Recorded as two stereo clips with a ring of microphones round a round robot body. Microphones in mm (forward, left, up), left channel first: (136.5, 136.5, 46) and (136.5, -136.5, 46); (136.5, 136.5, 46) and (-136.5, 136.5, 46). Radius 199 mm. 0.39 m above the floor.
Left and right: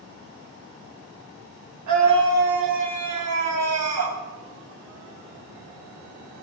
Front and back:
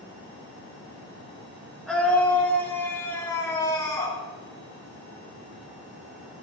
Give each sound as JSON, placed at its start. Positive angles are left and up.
{"t": 1.9, "sound": "a scream", "azimuth_deg": -95, "distance_m": 3.5}